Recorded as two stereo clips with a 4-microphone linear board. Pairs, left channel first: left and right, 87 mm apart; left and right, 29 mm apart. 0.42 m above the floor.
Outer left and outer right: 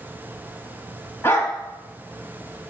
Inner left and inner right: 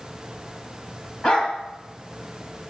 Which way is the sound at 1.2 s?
30° left (ahead or behind).